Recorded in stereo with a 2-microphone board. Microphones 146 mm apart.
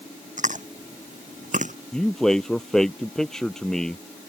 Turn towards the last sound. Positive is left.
turn(degrees=5)  # may be behind; listen again after turning